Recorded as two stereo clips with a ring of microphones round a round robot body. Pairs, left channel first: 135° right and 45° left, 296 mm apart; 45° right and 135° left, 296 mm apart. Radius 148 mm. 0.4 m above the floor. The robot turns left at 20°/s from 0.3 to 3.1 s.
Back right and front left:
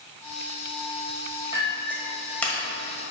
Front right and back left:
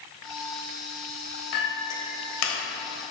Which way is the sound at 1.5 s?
30° right.